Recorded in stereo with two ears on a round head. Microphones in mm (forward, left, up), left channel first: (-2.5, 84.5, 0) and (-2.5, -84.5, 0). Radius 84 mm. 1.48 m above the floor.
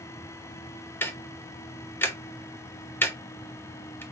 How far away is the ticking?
About 0.8 m.